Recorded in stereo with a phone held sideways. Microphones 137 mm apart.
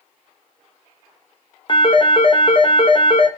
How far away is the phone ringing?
About 0.7 m.